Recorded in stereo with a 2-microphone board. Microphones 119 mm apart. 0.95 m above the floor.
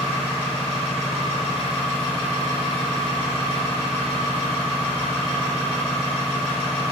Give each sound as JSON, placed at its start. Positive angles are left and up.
{"t": 0.0, "sound": "an engine running", "side_deg": -45, "distance_m": 1.8}